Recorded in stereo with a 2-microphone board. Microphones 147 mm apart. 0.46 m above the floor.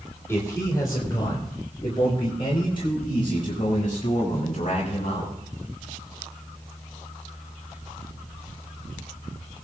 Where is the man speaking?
20° left (ahead or behind), 2.5 m; by 5.3 s 45° left (ahead or behind), 6.5 m.